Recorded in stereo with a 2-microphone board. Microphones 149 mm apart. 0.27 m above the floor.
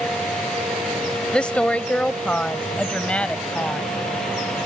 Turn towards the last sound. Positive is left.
turn(degrees=5)  # may be behind; listen again after turning